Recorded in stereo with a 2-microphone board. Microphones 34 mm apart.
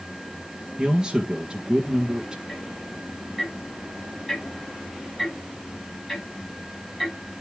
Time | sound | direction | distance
0.8 | a man speaking | 25° right (ahead or behind) | 1.6 m
2.5 | ticking | 5° left (ahead or behind) | 6.5 m